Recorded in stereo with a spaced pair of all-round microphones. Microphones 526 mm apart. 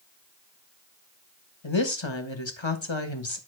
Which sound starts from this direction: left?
A woman speaking, at 1.6 s.